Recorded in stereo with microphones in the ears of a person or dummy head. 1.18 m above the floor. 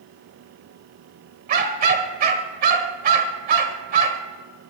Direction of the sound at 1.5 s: 50° right (ahead or behind).